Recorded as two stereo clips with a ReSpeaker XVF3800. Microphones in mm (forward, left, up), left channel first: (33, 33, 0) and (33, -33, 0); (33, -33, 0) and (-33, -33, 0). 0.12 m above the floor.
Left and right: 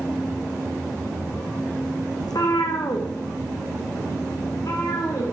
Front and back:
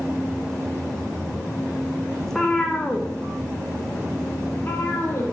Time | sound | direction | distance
2.2 | a cat meowing | 85° left | 1.4 m